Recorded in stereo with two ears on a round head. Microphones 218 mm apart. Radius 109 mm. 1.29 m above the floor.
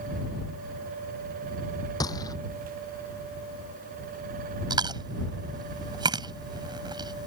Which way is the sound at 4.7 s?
20° right (ahead or behind).